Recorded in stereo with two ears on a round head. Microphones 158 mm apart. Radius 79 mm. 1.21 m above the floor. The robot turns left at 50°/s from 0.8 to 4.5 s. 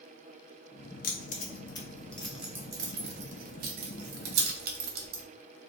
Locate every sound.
1.0 s keys jangling: 50° left (ahead or behind), 0.7 m; by 5.2 s 55° right (ahead or behind), 0.7 m